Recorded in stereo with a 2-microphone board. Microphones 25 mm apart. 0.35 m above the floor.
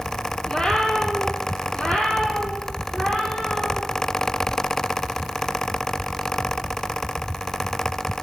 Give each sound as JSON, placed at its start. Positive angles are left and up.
{"t": 0.5, "sound": "a cat meowing", "side_deg": 25, "distance_m": 2.5}